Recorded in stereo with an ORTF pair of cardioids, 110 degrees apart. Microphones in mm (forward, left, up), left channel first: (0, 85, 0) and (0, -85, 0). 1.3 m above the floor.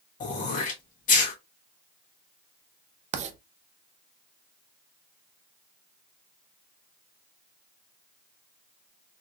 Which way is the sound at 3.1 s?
45° right.